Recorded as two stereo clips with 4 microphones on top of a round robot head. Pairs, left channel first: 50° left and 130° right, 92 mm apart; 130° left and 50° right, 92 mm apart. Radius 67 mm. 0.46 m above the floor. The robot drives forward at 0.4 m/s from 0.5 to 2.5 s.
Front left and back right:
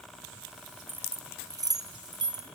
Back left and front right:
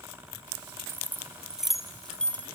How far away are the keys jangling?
About 0.6 m.